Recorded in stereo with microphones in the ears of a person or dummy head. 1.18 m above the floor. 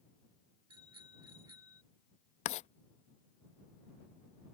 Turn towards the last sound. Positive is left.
turn(degrees=30)  # may be behind; listen again after turning